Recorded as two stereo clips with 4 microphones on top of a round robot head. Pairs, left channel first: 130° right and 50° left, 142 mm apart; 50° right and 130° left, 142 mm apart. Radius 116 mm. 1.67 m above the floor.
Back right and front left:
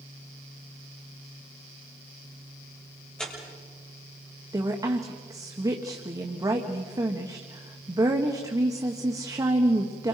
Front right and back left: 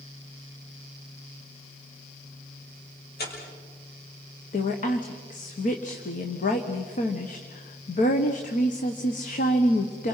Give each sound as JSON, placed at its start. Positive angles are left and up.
{"t": 3.2, "sound": "tearing paper", "azimuth_deg": -45, "distance_m": 6.5}
{"t": 4.5, "sound": "a woman speaking", "azimuth_deg": -15, "distance_m": 1.6}